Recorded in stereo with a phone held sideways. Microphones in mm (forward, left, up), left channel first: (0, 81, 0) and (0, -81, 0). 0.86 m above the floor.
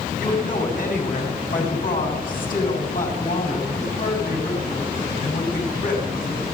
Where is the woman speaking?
60° left (ahead or behind), 7.5 m.